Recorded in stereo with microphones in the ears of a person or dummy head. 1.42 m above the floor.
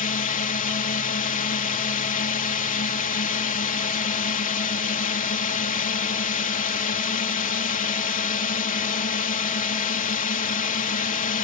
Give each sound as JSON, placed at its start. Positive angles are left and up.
{"t": 0.0, "sound": "a drone", "side_deg": 40}